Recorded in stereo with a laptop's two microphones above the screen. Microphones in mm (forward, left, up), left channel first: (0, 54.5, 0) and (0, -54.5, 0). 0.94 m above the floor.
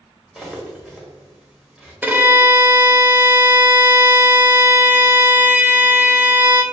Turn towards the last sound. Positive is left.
turn(degrees=-15)  # may be behind; listen again after turning